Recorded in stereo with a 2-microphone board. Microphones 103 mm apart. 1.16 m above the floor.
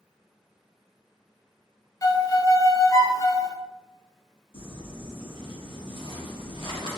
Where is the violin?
35° left (ahead or behind), 0.5 m.